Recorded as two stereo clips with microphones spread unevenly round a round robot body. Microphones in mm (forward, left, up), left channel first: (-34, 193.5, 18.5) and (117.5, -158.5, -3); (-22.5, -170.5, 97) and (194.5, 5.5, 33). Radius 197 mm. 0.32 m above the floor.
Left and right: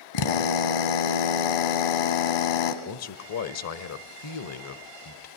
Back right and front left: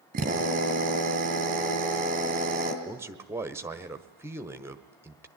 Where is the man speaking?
95° left, 1.3 m.